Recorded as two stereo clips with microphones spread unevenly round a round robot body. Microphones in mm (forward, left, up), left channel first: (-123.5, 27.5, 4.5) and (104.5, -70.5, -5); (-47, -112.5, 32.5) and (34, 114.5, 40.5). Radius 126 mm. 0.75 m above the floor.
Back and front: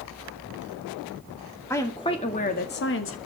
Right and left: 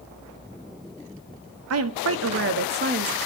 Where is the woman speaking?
75° left, 1.9 m; by 3.2 s 130° left, 1.7 m.